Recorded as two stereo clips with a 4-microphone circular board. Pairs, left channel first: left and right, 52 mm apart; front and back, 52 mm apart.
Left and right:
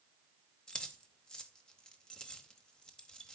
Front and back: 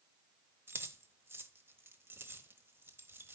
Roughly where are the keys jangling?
Behind.